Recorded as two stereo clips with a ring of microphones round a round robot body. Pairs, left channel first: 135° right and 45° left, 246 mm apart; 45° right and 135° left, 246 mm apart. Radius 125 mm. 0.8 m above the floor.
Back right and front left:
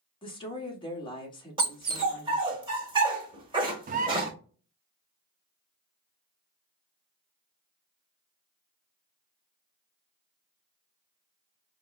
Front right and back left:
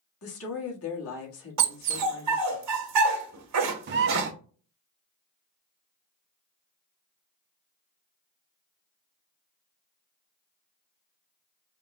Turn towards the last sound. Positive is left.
turn(degrees=100)